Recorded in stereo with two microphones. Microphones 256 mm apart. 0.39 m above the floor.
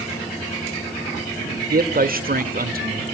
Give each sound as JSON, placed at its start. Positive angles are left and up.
{"t": 1.7, "sound": "a man speaking", "side_deg": -35, "distance_m": 1.0}